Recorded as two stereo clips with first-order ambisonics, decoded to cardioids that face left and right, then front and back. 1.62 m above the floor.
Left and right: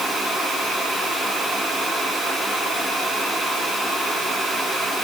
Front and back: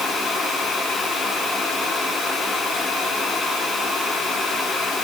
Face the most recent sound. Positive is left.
No sound to turn to.